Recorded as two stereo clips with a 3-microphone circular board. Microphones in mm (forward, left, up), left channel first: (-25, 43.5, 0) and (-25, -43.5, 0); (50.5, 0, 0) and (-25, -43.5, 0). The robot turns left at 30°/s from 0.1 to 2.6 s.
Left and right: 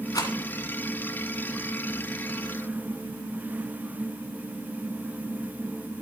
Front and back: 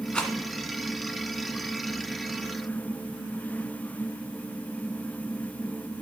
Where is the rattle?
105° left, 1.6 m; by 0.3 s 100° left, 1.6 m.